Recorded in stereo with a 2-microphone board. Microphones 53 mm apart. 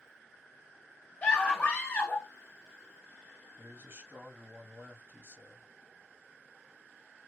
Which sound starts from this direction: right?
A man speaking, at 3.6 s.